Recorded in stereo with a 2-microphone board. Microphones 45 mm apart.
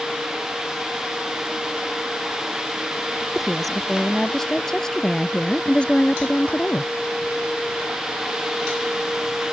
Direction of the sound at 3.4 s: Centre (ahead or behind).